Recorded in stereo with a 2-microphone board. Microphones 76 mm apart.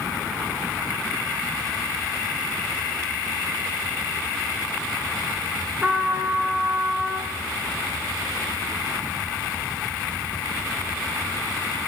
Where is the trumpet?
15° right (ahead or behind), 0.7 m.